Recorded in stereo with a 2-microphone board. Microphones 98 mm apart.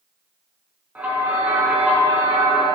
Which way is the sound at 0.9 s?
15° right (ahead or behind).